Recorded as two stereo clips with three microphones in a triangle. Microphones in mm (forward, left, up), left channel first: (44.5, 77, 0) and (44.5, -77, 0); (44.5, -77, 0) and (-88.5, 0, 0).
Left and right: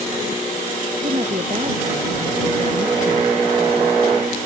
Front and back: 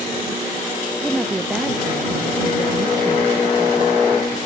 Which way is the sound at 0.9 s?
120° right.